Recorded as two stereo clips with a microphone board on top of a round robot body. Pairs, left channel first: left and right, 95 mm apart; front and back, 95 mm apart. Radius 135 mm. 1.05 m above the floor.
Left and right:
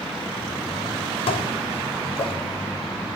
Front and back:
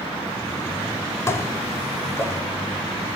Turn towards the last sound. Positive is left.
turn(degrees=65)